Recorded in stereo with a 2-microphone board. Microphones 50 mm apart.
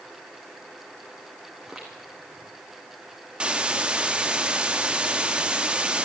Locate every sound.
1.6 s footsteps: 10° right (ahead or behind), 3 m
3.4 s a hiss: 20° right (ahead or behind), 1.0 m